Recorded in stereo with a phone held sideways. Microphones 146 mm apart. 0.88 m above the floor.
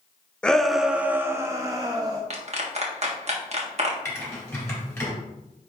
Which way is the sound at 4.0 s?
15° left (ahead or behind).